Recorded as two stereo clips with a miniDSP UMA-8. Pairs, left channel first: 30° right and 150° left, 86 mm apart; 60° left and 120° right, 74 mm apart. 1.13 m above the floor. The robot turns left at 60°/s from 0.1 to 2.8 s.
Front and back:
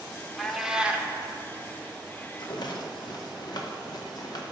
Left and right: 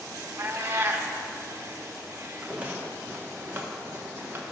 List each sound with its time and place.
0.4 s a cat meowing: 115° right, 0.8 m; by 1.1 s 155° right, 0.8 m
2.4 s a rattle: 40° right, 1.0 m; by 4.4 s 65° right, 1.0 m